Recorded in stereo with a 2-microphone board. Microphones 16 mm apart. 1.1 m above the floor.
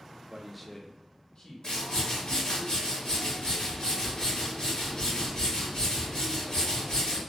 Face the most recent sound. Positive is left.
turn(degrees=60)  # may be behind; listen again after turning